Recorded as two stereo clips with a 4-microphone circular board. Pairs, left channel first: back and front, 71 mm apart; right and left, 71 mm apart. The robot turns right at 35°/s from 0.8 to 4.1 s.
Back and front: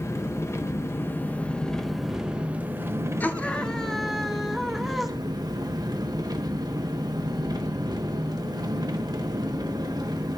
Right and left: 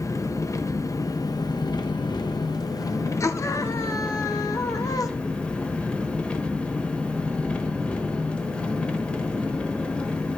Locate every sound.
0.0 s an engine running: 130° right, 1.1 m; by 10.4 s 15° right, 1.1 m
3.2 s a scream: 120° right, 1.1 m; by 5.1 s 90° right, 1.1 m